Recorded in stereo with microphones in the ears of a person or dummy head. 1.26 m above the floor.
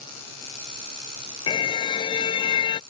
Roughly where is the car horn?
Left.